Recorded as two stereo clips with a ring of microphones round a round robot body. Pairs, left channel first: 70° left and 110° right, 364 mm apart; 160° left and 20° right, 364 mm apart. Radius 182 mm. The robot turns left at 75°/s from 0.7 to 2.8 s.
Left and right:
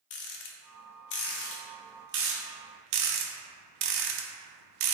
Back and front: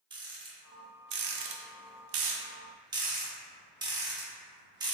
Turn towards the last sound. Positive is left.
turn(degrees=-100)